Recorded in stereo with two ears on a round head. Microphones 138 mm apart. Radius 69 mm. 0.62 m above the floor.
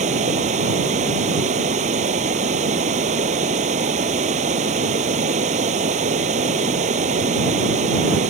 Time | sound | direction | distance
0.0 | running water | 45° right (ahead or behind) | ?